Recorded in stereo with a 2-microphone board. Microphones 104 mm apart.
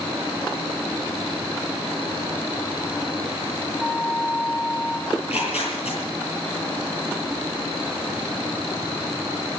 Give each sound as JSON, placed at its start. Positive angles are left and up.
{"t": 3.8, "sound": "a flute", "side_deg": 0, "distance_m": 2.0}
{"t": 5.1, "sound": "tearing paper", "side_deg": 80, "distance_m": 9.0}